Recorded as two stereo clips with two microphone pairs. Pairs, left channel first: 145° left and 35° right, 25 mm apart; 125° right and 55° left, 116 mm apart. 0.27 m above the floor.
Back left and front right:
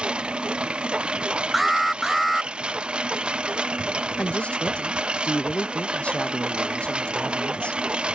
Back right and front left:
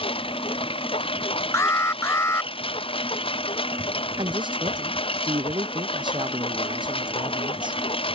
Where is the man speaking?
100° left.